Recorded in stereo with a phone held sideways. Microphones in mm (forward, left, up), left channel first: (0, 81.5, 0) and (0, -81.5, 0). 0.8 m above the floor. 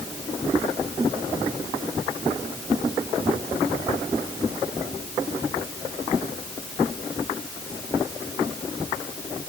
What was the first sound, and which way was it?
Only background noise.